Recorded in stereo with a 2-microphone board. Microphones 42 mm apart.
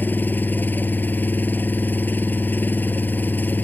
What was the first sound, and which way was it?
An engine running, 50° left (ahead or behind).